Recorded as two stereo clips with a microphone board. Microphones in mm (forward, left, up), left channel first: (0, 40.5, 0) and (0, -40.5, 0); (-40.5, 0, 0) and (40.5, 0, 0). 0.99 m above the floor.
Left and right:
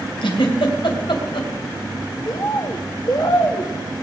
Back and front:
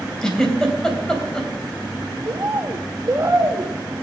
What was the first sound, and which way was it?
A giggle, 100° left.